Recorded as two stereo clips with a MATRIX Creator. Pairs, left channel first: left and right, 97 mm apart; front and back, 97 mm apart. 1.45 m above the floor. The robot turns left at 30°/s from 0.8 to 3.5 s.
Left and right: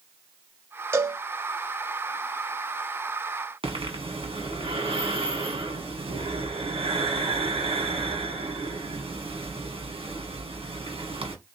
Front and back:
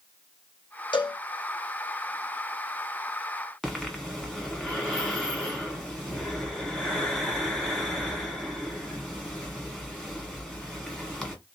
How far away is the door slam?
I don't hear a door slam.